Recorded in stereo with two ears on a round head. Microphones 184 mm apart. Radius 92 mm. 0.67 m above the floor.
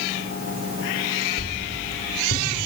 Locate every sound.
1.4 s a whoosh: 60° left (ahead or behind), 2.5 m